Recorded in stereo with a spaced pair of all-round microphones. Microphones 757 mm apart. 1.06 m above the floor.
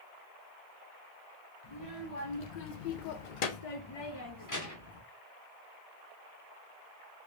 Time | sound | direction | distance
1.6 | a child speaking | 45° left (ahead or behind) | 1.1 m